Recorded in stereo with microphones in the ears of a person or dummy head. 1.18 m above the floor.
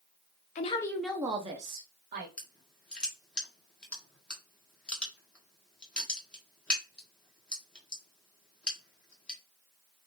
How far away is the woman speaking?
About 0.6 m.